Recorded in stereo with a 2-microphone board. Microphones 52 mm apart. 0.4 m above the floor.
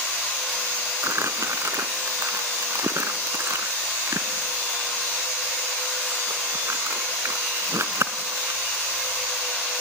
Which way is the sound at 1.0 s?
70° right (ahead or behind).